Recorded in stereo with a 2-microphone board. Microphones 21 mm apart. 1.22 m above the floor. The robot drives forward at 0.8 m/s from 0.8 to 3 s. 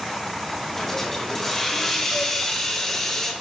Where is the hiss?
15° left (ahead or behind), 7 m; by 3.3 s 20° left (ahead or behind), 5.5 m.